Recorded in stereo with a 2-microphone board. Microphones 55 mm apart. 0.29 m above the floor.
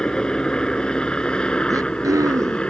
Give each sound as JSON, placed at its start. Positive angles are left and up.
{"t": 0.0, "sound": "a helicopter", "side_deg": 15}
{"t": 1.7, "sound": "throat clearing", "side_deg": -85}